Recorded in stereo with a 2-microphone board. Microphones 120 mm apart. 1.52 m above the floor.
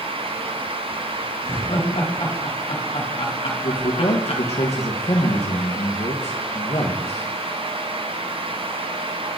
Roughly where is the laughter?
Left.